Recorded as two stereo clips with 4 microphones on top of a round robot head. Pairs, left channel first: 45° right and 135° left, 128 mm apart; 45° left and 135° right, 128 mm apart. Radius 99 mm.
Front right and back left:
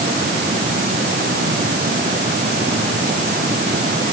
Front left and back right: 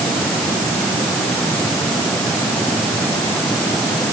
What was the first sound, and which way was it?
Only background noise.